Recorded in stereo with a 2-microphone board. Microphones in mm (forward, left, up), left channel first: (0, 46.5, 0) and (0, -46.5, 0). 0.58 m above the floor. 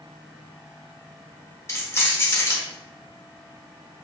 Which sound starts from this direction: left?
Keys jangling, at 1.7 s.